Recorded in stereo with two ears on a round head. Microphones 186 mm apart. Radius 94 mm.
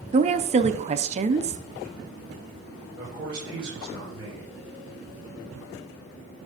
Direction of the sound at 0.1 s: 30° right (ahead or behind).